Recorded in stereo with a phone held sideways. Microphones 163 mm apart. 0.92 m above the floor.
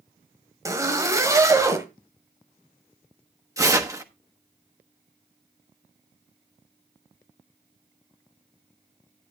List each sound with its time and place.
0.7 s a zipper: 20° right (ahead or behind), 1.7 m
3.6 s tearing paper: 20° right (ahead or behind), 1.1 m